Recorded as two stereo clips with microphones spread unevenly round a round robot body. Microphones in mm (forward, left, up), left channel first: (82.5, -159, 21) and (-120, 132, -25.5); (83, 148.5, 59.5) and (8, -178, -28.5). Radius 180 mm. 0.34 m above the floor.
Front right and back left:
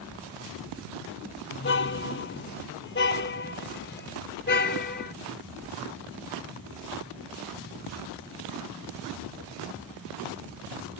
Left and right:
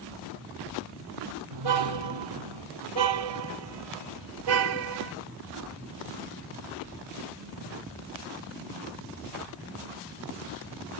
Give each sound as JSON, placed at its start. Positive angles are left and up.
{"t": 1.5, "sound": "a car horn", "azimuth_deg": -115}